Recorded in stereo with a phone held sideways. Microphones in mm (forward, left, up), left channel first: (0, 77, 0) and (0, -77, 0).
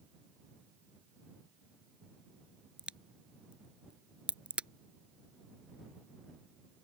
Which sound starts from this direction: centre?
A crack, at 2.8 s.